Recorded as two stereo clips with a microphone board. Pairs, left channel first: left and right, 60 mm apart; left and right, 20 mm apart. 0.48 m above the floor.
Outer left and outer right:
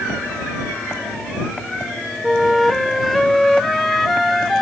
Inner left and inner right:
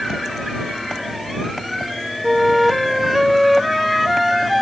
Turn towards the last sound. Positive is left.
turn(degrees=0)  # may be behind; listen again after turning